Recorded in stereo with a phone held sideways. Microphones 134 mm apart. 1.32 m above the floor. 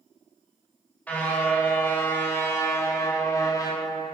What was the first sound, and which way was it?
A car horn, 10° left (ahead or behind).